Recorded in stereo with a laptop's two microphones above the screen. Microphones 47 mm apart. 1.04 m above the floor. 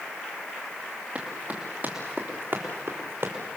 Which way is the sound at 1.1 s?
30° right (ahead or behind).